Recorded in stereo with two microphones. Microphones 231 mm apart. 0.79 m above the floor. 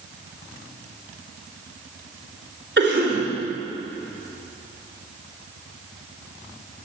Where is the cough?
50° right (ahead or behind), 3 m.